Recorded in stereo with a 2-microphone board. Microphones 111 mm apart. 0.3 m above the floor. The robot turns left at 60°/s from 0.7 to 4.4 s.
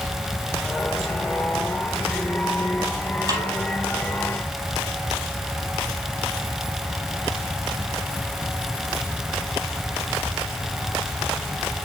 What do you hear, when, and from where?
3.3 s a snare drum: 30° right (ahead or behind), 4 m; by 3.5 s 20° right (ahead or behind), 4 m